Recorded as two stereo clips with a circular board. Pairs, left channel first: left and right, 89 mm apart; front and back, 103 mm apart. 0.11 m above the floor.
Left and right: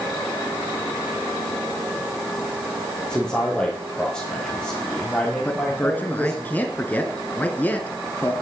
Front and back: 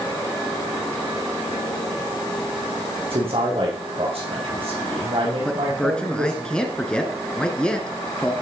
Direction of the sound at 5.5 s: 65° left.